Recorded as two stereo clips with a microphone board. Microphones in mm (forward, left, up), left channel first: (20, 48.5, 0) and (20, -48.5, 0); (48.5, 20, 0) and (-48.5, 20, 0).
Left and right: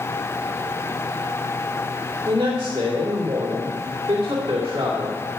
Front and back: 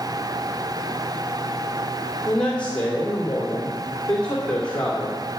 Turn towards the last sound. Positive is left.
turn(degrees=-75)